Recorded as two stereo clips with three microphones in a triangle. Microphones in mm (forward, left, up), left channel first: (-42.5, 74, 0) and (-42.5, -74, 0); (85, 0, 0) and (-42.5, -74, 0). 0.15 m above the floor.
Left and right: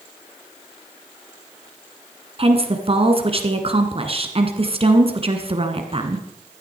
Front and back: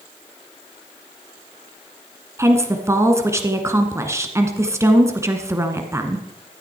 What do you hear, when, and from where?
2.4 s a woman speaking: 90° right, 1.7 m